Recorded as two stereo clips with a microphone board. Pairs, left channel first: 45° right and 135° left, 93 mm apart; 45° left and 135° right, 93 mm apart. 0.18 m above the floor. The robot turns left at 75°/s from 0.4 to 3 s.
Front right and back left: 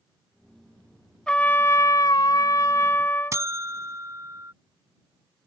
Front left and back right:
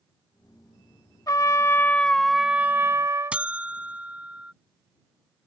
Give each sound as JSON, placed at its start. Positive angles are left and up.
{"t": 1.3, "sound": "a trumpet", "azimuth_deg": 30}
{"t": 3.3, "sound": "a buzzer", "azimuth_deg": 160}